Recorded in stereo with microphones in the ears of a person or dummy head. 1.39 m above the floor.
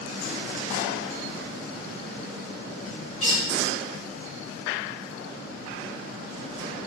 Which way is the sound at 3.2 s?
35° left (ahead or behind).